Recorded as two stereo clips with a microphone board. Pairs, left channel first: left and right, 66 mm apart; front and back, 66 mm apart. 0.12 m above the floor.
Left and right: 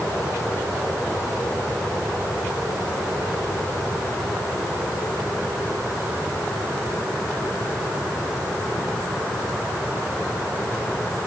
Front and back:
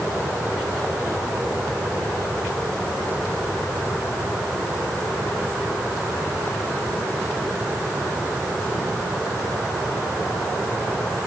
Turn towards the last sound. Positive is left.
No sound to turn to.